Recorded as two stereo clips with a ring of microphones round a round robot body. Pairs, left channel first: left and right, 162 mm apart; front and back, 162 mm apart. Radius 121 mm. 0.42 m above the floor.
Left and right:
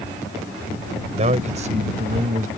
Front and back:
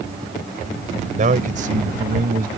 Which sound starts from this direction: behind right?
A man speaking, at 1.2 s.